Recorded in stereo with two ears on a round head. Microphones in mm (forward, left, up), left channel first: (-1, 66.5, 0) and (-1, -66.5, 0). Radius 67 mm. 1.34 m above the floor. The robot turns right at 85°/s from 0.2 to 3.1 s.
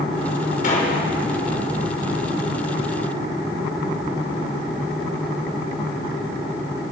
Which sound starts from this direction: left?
A gunshot, at 0.6 s.